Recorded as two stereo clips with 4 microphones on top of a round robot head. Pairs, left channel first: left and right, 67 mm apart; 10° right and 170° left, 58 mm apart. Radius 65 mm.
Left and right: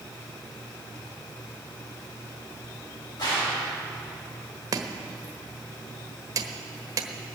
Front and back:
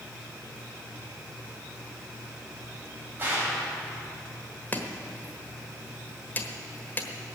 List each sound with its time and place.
3.2 s a gunshot: 110° left, 5.5 m
4.7 s chopping: 70° right, 1.3 m